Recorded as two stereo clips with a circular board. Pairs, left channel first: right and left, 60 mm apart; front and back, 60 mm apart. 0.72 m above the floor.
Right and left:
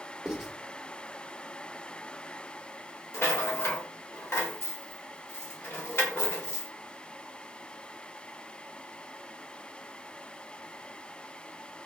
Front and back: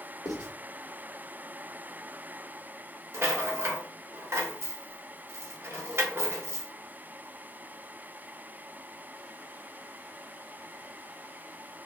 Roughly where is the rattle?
Behind right.